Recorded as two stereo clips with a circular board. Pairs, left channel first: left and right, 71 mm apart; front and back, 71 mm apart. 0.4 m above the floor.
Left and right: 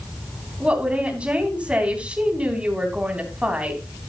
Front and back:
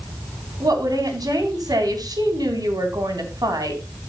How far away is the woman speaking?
About 3.5 m.